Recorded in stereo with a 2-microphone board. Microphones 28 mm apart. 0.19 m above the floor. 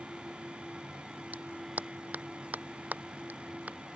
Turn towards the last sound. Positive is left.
turn(degrees=-75)  # may be behind; listen again after turning